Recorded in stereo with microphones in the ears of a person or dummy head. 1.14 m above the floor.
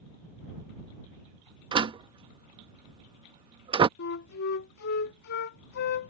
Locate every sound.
1.7 s a door slam: 25° right (ahead or behind)
4.0 s a flute: 65° left (ahead or behind)